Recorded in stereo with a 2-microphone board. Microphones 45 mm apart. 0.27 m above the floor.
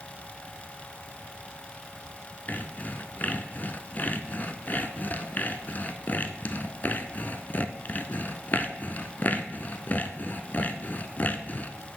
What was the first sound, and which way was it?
Sawing, 40° left (ahead or behind).